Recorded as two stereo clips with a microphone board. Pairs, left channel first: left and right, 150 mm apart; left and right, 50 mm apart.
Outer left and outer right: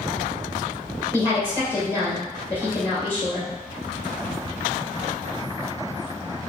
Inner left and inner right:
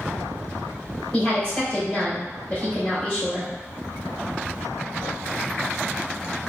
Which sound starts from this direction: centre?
A woman speaking, at 1.1 s.